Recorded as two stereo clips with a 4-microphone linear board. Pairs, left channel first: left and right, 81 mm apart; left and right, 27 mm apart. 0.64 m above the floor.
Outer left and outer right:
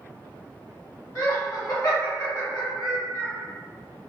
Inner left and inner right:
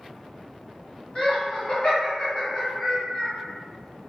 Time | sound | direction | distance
1.1 | laughter | 40° left (ahead or behind) | 1.7 m